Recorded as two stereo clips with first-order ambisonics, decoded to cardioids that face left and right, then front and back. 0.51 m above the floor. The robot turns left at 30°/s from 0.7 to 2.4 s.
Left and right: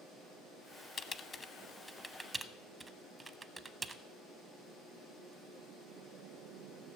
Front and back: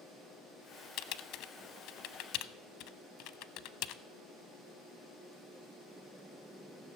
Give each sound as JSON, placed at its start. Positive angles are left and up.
{"t": 1.0, "sound": "typing on a keyboard", "azimuth_deg": 30, "distance_m": 0.6}